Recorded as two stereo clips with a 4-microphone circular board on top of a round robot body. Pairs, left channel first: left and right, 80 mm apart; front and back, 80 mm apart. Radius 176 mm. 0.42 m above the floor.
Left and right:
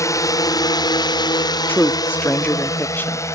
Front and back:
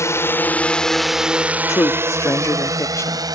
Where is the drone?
45° left; by 3.4 s 145° left.